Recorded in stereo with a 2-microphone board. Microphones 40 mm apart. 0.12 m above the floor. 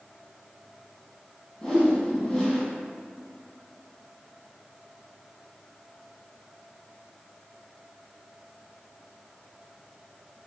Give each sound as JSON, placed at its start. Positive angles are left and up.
{"t": 1.6, "sound": "a whoosh", "side_deg": 15, "distance_m": 1.8}